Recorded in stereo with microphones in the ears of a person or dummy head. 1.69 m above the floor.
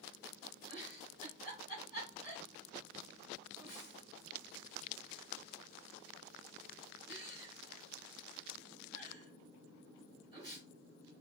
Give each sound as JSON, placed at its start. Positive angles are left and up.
{"t": 0.7, "sound": "a giggle", "side_deg": -25, "distance_m": 2.5}